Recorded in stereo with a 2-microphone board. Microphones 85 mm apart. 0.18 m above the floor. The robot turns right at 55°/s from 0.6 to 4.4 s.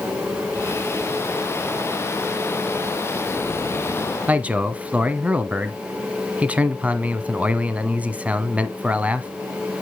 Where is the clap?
I don't hear a clap.